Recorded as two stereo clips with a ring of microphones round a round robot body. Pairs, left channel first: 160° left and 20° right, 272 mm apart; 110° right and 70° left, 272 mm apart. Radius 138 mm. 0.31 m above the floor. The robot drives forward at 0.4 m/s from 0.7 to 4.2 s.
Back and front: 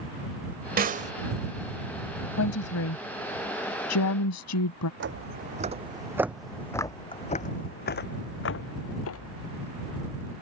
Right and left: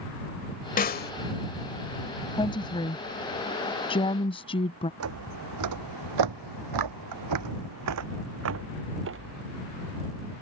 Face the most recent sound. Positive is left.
turn(degrees=120)